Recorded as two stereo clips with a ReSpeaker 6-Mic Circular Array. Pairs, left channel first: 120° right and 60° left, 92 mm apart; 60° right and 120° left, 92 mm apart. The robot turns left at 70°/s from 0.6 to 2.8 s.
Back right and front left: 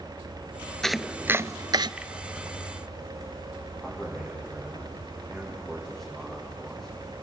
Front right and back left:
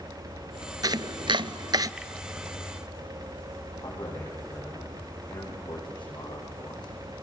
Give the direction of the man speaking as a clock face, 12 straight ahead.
1 o'clock.